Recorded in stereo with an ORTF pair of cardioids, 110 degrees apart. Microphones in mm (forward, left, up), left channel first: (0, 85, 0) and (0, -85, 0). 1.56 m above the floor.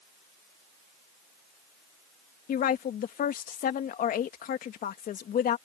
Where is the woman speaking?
55° left.